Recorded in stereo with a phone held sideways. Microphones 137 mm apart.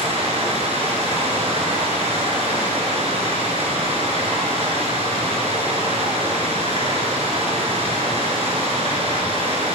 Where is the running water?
45° right (ahead or behind), 6 m.